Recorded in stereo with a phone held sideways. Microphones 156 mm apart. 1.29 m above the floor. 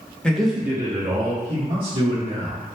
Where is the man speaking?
5° left (ahead or behind), 0.6 m; by 2.6 s 40° right (ahead or behind), 1.2 m.